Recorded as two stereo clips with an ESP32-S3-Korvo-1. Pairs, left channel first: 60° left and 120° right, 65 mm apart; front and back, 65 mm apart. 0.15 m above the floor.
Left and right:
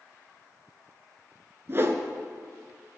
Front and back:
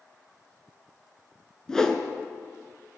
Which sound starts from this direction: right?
A whoosh, at 1.7 s.